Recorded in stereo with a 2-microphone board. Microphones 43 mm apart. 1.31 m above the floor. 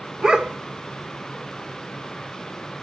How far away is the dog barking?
About 1.4 m.